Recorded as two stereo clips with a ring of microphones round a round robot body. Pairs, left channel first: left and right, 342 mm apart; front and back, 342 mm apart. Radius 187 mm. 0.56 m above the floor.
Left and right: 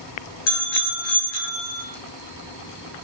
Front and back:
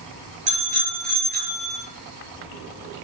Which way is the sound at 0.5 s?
110° left.